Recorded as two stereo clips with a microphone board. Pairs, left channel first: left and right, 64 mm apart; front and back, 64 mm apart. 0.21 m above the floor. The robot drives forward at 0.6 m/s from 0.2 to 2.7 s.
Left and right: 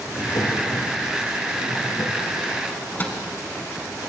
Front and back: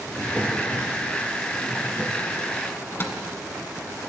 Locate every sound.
0.1 s a drawer: 85° left, 2.5 m; by 2.2 s 110° left, 2.5 m
2.7 s a microwave: 40° left, 1.4 m